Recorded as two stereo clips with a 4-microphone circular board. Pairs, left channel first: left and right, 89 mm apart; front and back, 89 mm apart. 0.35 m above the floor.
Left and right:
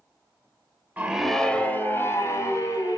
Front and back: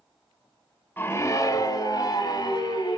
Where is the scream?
40° right, 1.0 m; by 3.0 s 40° left, 3 m.